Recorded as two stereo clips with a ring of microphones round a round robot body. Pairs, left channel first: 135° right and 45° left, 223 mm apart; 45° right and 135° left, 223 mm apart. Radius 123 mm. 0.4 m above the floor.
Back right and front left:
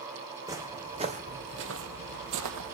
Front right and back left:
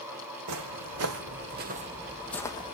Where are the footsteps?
120° left, 1.7 m; by 2.8 s 20° left, 1.2 m.